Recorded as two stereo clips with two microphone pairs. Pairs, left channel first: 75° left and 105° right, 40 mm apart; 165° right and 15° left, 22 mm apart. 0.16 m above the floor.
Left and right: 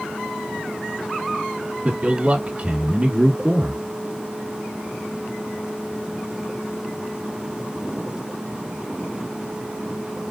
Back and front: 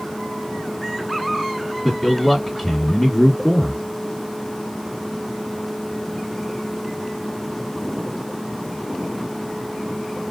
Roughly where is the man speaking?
Right.